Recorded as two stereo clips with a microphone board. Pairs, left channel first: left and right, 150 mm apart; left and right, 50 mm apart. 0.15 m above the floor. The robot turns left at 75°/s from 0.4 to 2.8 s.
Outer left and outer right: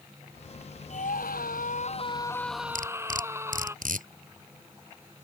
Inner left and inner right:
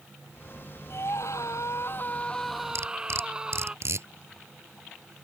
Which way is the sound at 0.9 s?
125° left.